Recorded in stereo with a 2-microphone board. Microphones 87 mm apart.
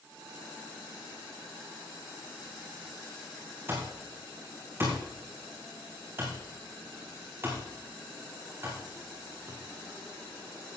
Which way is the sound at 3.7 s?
30° right (ahead or behind).